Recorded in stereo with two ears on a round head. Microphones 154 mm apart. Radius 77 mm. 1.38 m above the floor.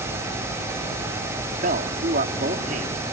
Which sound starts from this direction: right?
A man speaking, at 1.6 s.